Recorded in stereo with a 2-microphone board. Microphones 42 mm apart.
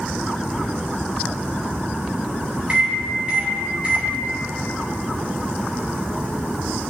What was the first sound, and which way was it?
A microwave, 35° right (ahead or behind).